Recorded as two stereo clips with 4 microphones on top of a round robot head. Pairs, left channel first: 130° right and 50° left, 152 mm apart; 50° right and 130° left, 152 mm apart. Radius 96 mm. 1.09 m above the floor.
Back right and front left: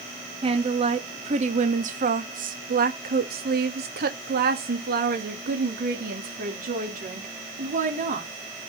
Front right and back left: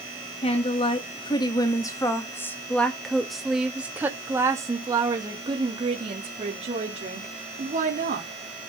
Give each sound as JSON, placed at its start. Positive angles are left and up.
{"t": 0.4, "sound": "a woman speaking", "azimuth_deg": 0, "distance_m": 2.5}